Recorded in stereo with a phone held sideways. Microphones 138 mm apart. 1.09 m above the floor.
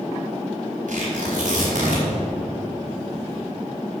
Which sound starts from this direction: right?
Tearing paper, at 0.9 s.